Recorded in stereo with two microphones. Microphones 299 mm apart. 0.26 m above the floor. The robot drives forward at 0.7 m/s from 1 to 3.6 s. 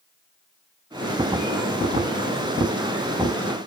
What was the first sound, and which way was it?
Only background noise.